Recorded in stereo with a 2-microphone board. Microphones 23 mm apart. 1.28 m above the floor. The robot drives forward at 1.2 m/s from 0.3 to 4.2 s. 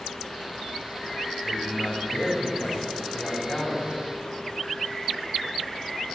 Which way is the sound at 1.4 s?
25° left (ahead or behind).